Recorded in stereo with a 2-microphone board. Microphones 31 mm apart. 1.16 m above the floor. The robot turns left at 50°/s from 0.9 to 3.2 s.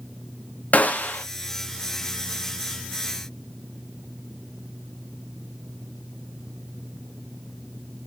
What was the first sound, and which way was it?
A gunshot, 50° left (ahead or behind).